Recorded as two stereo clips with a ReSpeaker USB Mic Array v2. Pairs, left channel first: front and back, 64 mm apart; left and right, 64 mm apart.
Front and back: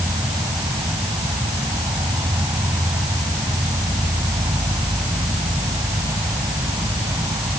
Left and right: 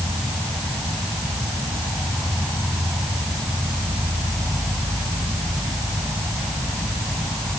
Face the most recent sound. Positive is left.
turn(degrees=175)